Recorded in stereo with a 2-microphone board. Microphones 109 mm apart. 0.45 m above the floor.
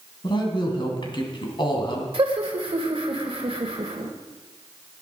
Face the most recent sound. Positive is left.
turn(degrees=-55)  # may be behind; listen again after turning